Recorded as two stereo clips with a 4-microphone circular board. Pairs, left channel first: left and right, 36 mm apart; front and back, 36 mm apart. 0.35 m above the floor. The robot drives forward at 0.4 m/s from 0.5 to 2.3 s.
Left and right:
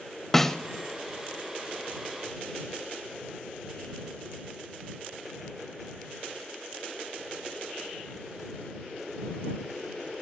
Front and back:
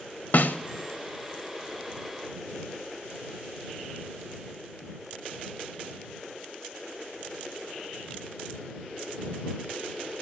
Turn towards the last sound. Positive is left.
turn(degrees=160)